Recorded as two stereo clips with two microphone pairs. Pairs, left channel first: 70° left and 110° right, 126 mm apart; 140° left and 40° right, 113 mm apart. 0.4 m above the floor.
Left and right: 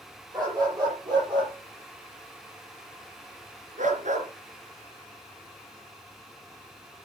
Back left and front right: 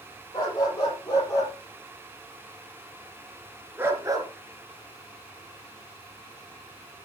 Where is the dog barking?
170° right, 6 m; by 4.3 s 95° right, 2.5 m.